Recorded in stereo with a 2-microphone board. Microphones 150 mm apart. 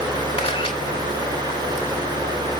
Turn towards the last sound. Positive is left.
turn(degrees=40)  # may be behind; listen again after turning